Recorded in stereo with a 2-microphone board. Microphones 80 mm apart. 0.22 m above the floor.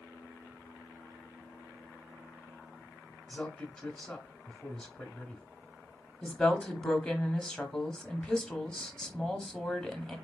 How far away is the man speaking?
About 1.1 m.